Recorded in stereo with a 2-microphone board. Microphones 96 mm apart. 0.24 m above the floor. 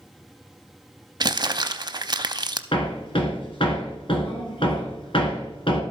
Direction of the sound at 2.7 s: 65° left (ahead or behind).